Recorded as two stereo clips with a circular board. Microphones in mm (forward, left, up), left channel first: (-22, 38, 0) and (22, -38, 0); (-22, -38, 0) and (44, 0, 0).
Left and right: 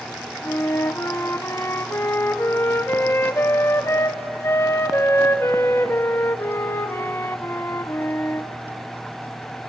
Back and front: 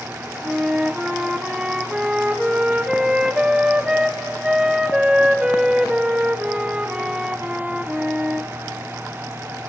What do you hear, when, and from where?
0.4 s a flute: 100° left, 0.6 m